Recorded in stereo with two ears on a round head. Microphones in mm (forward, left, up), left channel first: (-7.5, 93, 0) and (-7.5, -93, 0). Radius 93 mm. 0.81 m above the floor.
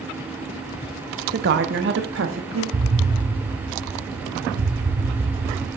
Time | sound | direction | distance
1.3 | a woman speaking | 50° right (ahead or behind) | 0.8 m
2.7 | an explosion | 65° right (ahead or behind) | 1.5 m